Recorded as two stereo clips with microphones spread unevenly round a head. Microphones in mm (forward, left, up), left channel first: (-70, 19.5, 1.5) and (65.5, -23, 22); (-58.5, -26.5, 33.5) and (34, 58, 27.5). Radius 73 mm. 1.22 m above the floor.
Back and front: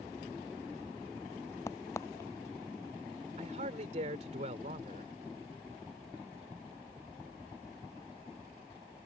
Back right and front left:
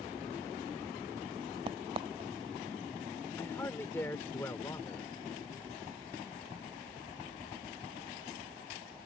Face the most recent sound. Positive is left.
turn(degrees=-65)